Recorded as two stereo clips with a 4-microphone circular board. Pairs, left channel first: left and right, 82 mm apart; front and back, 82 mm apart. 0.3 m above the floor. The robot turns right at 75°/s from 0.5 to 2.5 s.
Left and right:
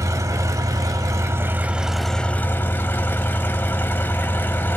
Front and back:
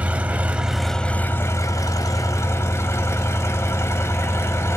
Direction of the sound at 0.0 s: 115° right.